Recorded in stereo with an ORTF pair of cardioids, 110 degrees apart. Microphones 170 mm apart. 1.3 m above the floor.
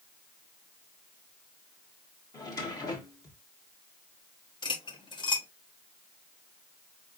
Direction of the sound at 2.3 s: 20° left.